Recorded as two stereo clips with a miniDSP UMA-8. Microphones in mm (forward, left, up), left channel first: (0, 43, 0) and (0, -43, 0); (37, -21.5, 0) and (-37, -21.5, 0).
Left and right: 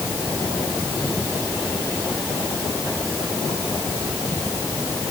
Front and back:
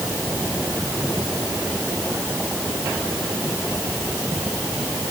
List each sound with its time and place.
Only background noise.